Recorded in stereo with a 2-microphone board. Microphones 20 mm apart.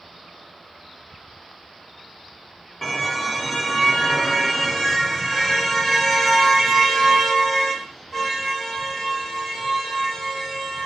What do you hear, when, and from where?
2.8 s a car horn: 15° left (ahead or behind), 3 m; by 10.9 s 25° left (ahead or behind), 11.5 m